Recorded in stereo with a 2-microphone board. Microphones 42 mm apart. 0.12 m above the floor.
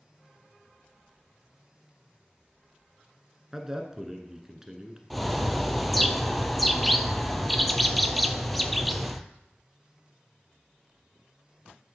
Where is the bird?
Centre (ahead or behind), 0.6 m.